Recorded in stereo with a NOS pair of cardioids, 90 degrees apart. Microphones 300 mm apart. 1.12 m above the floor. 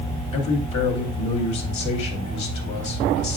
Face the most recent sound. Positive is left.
turn(degrees=70)